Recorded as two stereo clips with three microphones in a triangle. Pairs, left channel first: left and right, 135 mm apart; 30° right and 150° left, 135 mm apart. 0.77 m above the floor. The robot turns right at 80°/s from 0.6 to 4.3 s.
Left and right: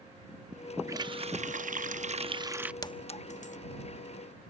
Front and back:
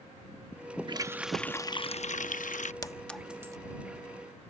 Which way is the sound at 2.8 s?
30° left.